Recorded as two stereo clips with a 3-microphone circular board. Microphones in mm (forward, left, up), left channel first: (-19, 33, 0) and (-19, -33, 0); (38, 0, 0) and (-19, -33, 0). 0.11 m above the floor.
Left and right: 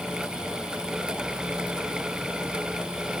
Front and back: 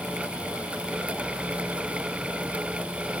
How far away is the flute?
I don't hear a flute.